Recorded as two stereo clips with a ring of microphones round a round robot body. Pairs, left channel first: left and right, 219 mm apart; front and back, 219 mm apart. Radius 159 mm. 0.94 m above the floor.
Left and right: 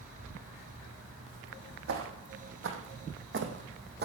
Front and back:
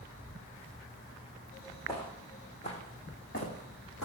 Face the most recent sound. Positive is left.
turn(degrees=-50)